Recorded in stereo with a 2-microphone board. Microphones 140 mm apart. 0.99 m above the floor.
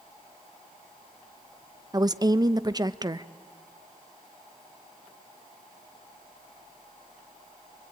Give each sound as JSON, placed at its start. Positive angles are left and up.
{"t": 1.9, "sound": "a woman speaking", "side_deg": -30, "distance_m": 0.6}